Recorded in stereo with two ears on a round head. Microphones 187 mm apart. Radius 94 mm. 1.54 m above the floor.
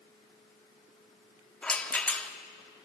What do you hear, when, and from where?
1.6 s a rattle: 5° left (ahead or behind), 1.4 m